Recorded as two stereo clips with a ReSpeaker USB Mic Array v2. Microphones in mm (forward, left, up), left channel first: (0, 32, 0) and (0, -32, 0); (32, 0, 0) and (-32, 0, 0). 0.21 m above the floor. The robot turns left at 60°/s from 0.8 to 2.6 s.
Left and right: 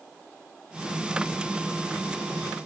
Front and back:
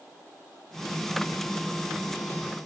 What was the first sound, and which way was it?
Only background noise.